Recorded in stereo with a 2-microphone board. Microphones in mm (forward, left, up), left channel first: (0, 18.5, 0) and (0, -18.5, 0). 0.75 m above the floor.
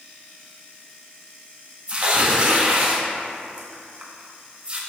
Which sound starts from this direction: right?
Tearing paper, at 1.9 s.